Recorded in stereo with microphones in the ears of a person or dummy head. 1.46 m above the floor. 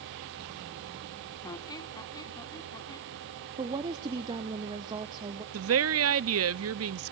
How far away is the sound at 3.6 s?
About 0.8 m.